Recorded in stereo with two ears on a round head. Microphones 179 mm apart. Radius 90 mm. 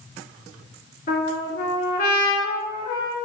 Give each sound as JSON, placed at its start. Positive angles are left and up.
{"t": 1.1, "sound": "a trumpet", "side_deg": 45, "distance_m": 2.0}